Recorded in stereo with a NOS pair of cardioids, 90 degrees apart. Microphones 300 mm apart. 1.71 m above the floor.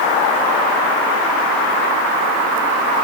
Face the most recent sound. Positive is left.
No sound to turn to.